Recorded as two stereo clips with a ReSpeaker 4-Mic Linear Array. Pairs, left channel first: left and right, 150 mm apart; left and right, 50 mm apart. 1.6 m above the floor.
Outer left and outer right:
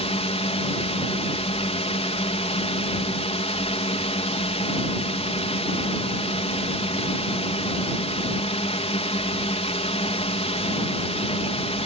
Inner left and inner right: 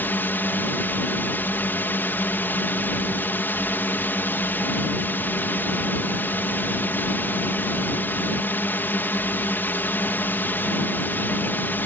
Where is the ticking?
No ticking in this recording.